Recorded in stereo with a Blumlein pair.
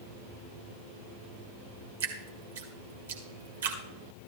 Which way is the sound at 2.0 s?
60° right.